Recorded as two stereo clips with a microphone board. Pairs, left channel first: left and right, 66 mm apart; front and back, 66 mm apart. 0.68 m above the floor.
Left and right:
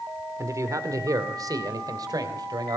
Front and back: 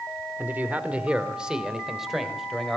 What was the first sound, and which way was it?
A man speaking, 120° right.